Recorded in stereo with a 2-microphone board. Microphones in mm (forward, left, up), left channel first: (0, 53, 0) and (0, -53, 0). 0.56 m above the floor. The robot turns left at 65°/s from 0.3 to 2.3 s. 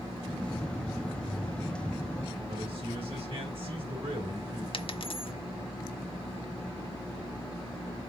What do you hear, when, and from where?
2.5 s a man speaking: 60° right (ahead or behind), 3.5 m
4.7 s a dropped coin: 55° left (ahead or behind), 0.6 m